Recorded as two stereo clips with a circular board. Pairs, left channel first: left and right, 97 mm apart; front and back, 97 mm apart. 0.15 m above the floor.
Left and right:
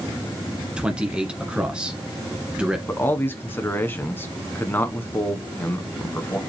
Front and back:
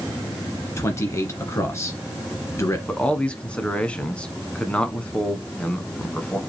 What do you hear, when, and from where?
0.8 s a man speaking: 20° right, 1.5 m
2.9 s a man speaking: 60° left, 1.1 m